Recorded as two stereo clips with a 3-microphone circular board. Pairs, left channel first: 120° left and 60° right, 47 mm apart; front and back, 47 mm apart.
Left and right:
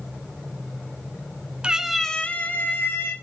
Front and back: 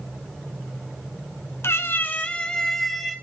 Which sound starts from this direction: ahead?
A cat meowing, at 1.6 s.